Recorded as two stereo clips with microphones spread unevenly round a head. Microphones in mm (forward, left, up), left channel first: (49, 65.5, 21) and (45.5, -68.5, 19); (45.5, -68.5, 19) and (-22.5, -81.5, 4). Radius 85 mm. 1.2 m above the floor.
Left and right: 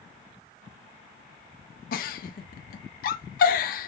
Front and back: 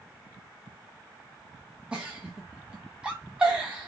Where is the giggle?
100° left, 0.6 m.